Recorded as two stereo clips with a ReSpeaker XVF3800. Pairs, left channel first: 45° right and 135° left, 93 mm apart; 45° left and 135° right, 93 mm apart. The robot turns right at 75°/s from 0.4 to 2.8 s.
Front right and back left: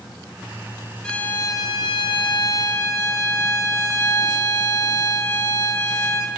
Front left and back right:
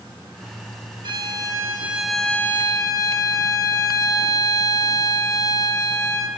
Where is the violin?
125° right, 1.2 m; by 6.3 s 5° left, 1.2 m.